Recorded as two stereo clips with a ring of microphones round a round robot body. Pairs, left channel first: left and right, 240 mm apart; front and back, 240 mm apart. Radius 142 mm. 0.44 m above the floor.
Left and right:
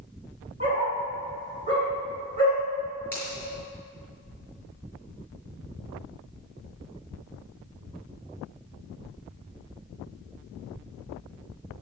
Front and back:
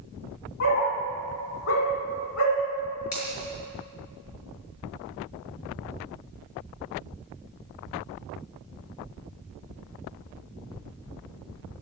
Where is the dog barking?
20° right, 5.5 m.